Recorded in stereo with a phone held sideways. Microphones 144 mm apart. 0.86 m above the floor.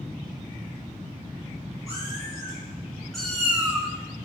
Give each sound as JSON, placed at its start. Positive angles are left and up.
{"t": 1.9, "sound": "a cat meowing", "side_deg": 20, "distance_m": 3.0}